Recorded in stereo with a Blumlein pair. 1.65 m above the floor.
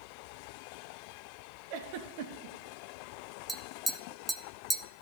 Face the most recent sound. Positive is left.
turn(degrees=-10)